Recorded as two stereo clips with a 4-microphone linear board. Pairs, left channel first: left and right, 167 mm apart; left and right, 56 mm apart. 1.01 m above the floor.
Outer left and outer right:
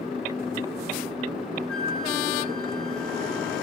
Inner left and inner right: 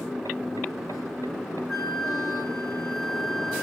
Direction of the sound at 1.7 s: 5° left (ahead or behind).